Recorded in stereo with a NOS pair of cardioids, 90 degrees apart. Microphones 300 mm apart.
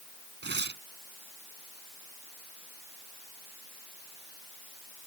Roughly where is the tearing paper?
Ahead right.